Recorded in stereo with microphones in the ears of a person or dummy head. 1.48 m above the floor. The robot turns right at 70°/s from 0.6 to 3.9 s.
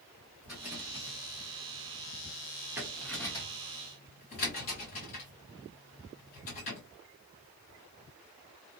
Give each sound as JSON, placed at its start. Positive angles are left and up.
{"t": 0.4, "sound": "a rattle", "side_deg": -10, "distance_m": 1.3}